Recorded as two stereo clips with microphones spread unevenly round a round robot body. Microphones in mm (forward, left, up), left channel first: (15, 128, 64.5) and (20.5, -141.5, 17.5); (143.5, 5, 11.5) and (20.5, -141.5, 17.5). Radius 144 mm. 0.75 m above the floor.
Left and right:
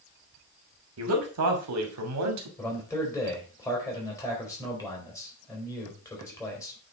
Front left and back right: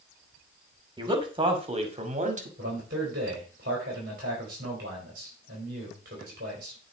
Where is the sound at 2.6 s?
175° left, 3.5 m.